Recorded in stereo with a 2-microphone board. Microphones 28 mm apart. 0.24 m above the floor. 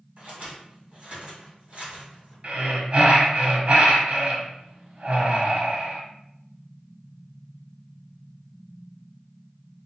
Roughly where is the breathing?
Right.